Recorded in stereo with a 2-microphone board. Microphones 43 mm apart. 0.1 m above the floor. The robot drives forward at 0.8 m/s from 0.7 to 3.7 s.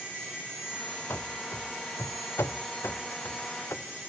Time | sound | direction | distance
1.1 | running footsteps | 70° left (ahead or behind) | 0.9 m